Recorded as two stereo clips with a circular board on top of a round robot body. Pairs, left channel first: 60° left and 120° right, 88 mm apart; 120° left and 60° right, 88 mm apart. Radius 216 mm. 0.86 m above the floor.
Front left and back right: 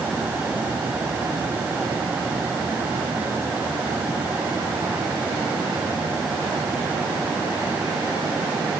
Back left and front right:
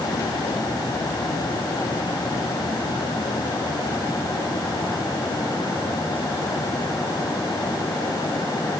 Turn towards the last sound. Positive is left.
No sound to turn to.